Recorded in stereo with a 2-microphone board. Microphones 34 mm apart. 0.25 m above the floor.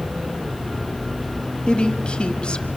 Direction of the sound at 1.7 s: 30° left (ahead or behind).